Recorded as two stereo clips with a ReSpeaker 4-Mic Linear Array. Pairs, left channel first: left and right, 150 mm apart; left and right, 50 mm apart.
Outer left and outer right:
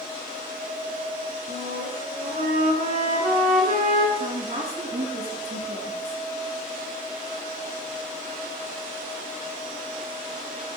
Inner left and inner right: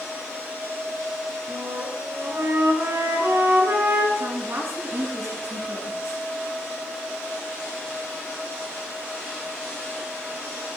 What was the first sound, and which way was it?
A flute, 70° right (ahead or behind).